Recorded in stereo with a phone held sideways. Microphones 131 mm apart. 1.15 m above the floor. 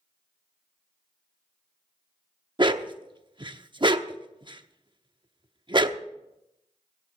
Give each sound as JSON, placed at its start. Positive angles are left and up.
{"t": 2.6, "sound": "a dog barking", "side_deg": -35, "distance_m": 0.7}